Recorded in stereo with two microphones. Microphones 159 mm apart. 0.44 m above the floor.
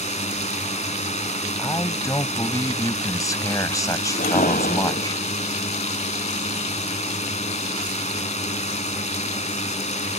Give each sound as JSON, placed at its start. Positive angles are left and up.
{"t": 0.0, "sound": "a drone", "side_deg": 50}
{"t": 1.6, "sound": "a man speaking", "side_deg": 25}
{"t": 4.2, "sound": "a whoosh", "side_deg": 80}